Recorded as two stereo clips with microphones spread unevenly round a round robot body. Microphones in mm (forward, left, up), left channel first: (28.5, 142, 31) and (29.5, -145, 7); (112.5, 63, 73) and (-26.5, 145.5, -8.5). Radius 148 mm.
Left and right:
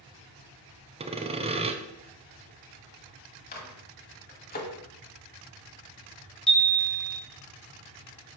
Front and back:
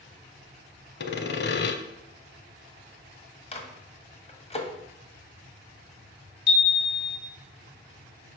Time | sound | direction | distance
1.0 | sawing | 20° right | 0.8 m
3.5 | a microwave | 30° left | 1.6 m
6.5 | a chime | straight ahead | 1.9 m